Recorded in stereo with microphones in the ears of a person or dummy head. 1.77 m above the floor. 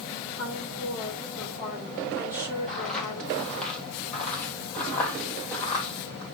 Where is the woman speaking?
15° right (ahead or behind), 5.5 m.